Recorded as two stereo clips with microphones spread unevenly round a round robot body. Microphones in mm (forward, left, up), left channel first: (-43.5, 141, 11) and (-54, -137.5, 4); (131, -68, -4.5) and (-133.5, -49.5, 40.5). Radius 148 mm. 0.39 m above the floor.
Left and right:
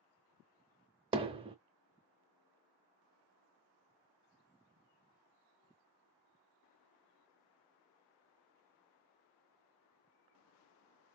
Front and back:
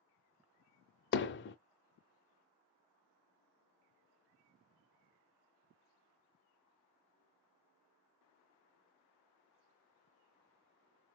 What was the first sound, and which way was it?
Hammering, 25° right.